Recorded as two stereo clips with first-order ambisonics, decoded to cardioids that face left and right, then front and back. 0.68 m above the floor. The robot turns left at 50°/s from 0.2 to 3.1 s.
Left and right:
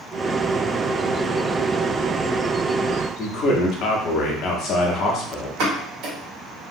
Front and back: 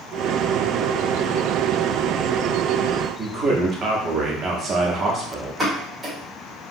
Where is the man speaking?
130° left, 0.8 m.